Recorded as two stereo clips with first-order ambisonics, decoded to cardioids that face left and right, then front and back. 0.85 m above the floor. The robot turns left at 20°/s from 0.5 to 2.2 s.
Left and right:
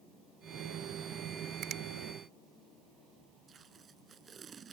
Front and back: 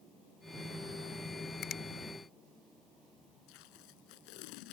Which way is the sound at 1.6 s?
45° right.